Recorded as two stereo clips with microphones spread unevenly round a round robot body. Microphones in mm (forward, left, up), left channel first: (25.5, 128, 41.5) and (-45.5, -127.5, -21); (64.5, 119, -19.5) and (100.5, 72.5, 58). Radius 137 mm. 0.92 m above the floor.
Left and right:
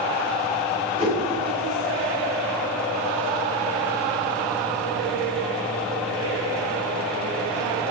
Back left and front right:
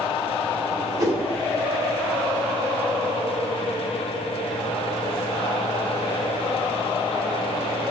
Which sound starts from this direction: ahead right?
A whoosh, at 1.0 s.